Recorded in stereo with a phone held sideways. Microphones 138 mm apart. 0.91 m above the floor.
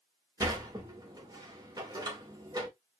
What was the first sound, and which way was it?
A sliding door, 30° right (ahead or behind).